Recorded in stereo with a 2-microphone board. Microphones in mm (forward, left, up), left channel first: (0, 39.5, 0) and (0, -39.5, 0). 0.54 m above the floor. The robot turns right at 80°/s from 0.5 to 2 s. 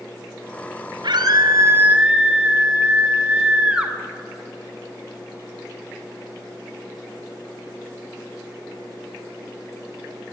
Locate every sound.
1.0 s a scream: 90° right, 2.5 m; by 3.9 s 15° right, 2.5 m